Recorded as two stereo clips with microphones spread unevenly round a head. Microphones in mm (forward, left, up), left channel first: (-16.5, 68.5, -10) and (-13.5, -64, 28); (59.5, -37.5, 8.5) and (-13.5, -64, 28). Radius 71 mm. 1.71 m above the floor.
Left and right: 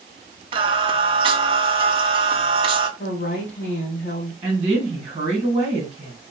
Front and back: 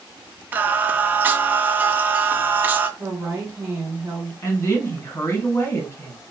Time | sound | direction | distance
0.5 | singing | 110° right | 0.5 m
3.0 | a woman speaking | 135° left | 1.1 m
4.4 | a woman speaking | 30° right | 1.6 m